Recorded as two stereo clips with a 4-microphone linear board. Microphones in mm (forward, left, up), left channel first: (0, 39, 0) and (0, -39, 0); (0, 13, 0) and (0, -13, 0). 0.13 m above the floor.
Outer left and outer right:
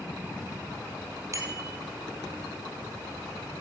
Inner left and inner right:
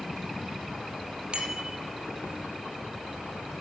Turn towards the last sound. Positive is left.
turn(degrees=-40)  # may be behind; listen again after turning